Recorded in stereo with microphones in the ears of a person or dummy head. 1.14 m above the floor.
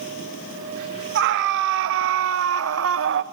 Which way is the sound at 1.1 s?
60° right (ahead or behind).